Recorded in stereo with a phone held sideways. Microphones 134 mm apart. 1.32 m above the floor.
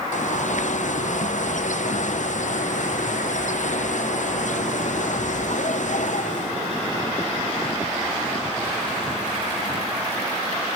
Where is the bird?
65° left (ahead or behind), 0.6 m.